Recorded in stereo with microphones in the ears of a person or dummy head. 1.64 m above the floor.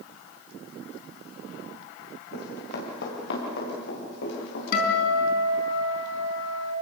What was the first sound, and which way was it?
Running footsteps, 55° left (ahead or behind).